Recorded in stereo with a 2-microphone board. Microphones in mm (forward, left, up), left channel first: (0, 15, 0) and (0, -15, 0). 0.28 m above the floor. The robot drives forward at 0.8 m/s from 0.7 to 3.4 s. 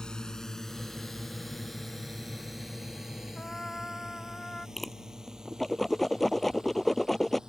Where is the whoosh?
Centre (ahead or behind).